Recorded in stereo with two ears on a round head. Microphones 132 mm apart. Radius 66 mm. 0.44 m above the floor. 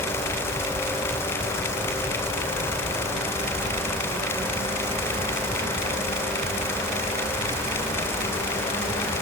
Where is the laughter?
No laughter in this recording.